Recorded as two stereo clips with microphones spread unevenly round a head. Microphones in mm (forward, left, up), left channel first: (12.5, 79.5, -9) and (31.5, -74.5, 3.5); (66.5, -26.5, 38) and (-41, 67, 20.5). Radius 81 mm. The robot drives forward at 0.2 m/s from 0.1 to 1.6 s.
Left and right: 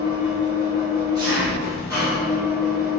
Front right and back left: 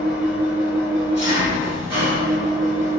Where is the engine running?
125° right, 1.0 m; by 3.0 s 140° right, 1.1 m.